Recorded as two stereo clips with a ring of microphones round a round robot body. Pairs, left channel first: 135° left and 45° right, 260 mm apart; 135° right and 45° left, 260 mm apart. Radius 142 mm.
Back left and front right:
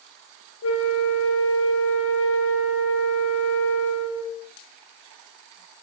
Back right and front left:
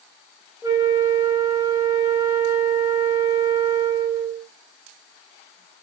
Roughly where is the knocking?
No knocking in this recording.